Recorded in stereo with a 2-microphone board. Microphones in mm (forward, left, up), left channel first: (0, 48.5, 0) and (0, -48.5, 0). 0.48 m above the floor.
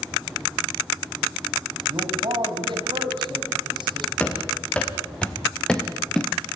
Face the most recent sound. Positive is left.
turn(degrees=5)  # may be behind; listen again after turning